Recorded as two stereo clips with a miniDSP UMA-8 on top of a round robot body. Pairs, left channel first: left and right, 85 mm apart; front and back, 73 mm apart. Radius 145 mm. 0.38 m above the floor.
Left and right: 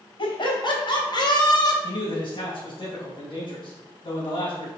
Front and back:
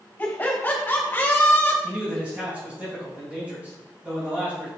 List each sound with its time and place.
0.2 s laughter: 70° left, 3 m; by 1.7 s 60° left, 2.5 m
1.8 s a man speaking: 110° left, 3.5 m